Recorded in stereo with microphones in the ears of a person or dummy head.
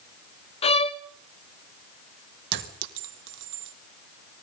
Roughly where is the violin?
Left.